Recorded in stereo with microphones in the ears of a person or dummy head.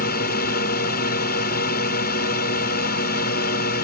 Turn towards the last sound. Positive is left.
turn(degrees=55)  # may be behind; listen again after turning